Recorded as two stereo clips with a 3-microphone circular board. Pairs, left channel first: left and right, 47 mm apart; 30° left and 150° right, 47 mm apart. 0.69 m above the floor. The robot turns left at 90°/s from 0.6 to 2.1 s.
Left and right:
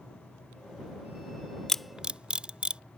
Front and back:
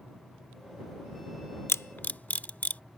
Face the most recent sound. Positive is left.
turn(degrees=-25)